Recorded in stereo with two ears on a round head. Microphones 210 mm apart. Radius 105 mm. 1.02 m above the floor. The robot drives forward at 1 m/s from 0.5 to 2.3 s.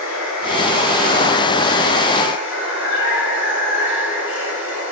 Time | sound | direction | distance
0.0 | running water | 80° left | 5 m